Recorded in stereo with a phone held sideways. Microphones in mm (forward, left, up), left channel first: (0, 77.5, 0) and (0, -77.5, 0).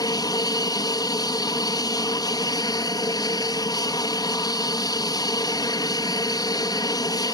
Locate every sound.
0.0 s an aircraft: 25° left (ahead or behind)